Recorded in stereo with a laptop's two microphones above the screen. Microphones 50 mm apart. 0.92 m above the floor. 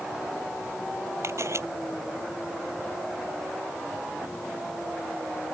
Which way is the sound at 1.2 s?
65° right (ahead or behind).